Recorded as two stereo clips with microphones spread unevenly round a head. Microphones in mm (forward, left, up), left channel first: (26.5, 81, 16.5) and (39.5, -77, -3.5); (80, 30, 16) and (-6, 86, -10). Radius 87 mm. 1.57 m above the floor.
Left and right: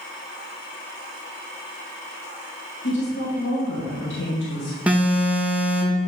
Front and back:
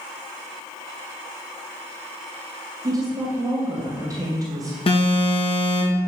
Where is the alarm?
5° right, 2 m.